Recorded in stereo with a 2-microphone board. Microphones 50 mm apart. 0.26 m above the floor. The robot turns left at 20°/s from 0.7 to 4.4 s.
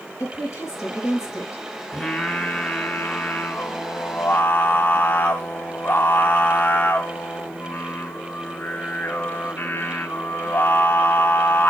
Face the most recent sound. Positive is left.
turn(degrees=90)